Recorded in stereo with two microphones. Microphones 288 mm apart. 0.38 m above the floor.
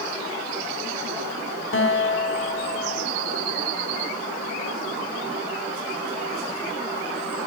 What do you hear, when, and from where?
1.7 s a guitar: 45° left (ahead or behind), 1.1 m